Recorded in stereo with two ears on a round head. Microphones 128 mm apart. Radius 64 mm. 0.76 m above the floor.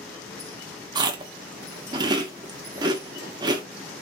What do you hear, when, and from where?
0.9 s chewing: 30° right (ahead or behind), 0.8 m